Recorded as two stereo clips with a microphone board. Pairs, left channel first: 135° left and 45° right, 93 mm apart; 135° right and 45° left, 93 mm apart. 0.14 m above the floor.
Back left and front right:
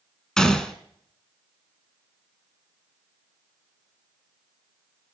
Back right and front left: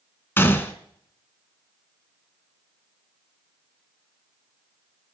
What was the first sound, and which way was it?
A gunshot, 150° right.